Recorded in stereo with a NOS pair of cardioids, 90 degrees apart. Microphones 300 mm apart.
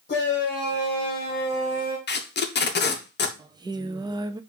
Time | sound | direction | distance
0.1 | a shout | 35° left | 1.3 m
2.1 | tape being pulled | 35° left | 1.0 m
3.4 | singing | 15° right | 0.5 m